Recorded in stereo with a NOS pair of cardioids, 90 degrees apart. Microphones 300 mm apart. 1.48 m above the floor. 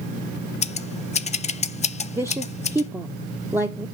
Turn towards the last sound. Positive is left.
turn(degrees=-10)